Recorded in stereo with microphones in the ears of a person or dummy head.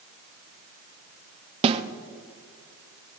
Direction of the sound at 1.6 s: 30° right (ahead or behind).